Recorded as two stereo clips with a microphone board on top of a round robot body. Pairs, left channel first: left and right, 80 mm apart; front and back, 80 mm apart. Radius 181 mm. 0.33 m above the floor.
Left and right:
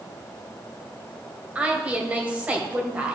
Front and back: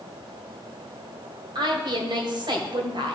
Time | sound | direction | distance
1.6 | a woman speaking | 165° right | 2 m